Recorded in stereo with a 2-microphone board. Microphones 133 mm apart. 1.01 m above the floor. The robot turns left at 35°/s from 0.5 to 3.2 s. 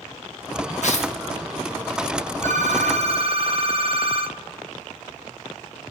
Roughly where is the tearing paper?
Left.